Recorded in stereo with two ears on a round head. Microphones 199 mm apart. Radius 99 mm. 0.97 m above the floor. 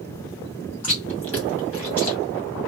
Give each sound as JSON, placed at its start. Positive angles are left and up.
{"t": 0.8, "sound": "chewing", "side_deg": 10, "distance_m": 1.5}